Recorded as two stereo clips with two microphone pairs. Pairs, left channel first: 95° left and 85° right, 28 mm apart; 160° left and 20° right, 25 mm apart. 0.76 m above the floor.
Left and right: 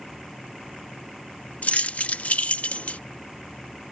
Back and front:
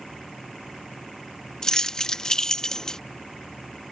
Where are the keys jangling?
95° left.